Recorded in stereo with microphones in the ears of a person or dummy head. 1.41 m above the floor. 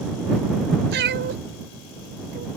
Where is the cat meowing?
50° right (ahead or behind).